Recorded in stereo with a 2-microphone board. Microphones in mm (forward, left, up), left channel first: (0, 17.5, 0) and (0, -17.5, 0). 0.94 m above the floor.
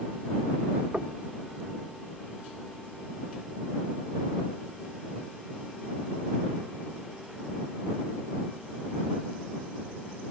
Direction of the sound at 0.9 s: 40° right (ahead or behind).